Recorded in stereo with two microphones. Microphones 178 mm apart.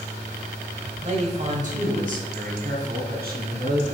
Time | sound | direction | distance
1.0 | a man speaking | 40° right (ahead or behind) | 1.9 m